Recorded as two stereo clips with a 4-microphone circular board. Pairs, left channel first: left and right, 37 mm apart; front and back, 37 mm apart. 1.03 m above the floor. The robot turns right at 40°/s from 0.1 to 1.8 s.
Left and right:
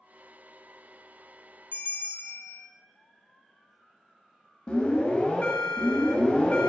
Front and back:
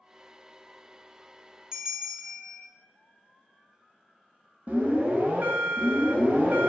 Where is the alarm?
150° left, 0.7 m.